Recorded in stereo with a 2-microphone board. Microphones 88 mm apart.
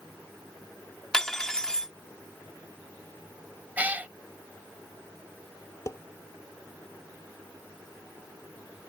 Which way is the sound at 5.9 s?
40° left (ahead or behind).